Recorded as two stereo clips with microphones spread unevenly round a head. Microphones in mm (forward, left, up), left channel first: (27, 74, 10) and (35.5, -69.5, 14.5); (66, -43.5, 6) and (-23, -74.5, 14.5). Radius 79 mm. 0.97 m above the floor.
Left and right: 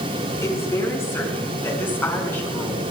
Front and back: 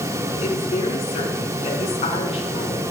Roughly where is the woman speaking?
Ahead left.